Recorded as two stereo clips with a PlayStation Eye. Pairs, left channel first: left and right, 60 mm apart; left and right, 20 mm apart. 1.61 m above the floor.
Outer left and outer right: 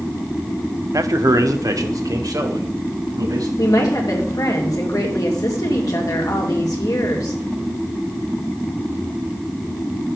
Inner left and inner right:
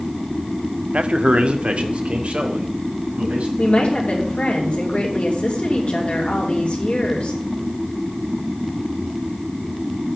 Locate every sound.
0.9 s a man speaking: 65° right (ahead or behind), 0.6 m; by 3.5 s 85° right, 2.5 m
3.6 s a woman speaking: 75° left (ahead or behind), 2.5 m